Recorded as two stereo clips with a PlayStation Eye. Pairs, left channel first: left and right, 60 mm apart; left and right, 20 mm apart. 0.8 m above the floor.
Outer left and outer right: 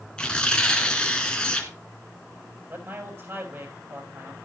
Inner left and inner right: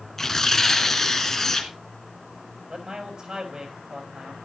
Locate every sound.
0.2 s tearing paper: 15° left (ahead or behind), 2 m
2.7 s a man speaking: 45° right (ahead or behind), 6 m